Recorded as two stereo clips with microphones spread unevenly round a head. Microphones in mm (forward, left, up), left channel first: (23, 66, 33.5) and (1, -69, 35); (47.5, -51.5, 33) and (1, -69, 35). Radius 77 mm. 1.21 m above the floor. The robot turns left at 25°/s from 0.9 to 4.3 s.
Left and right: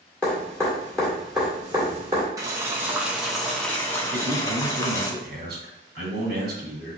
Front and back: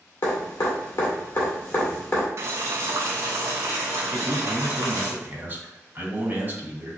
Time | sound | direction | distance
0.2 | dripping | straight ahead | 1.9 m
2.4 | boiling | 165° right | 0.5 m
4.1 | a man speaking | 100° right | 1.8 m